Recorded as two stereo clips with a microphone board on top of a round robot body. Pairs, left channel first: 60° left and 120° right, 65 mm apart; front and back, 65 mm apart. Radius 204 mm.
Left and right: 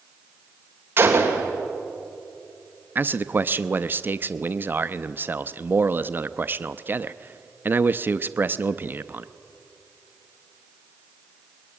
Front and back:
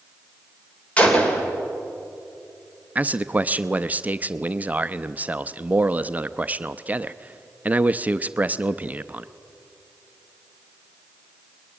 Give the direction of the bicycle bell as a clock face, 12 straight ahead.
No bicycle bell in this recording.